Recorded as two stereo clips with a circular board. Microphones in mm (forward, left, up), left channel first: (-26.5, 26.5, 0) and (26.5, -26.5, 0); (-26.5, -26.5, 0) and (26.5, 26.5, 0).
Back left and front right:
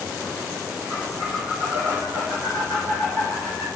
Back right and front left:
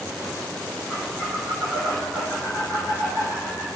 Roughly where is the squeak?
Right.